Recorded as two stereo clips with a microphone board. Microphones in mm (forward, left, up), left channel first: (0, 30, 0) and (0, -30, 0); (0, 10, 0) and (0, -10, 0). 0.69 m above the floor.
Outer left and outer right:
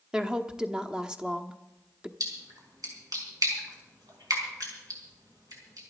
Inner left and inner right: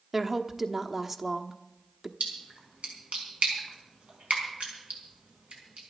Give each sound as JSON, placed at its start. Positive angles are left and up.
{"t": 0.1, "sound": "a woman speaking", "side_deg": -15, "distance_m": 1.0}
{"t": 2.2, "sound": "a splash", "side_deg": -80, "distance_m": 5.0}